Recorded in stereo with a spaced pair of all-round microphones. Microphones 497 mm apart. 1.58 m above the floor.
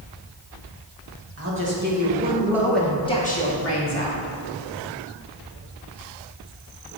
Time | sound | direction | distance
1.4 | a man speaking | 30° right (ahead or behind) | 2.5 m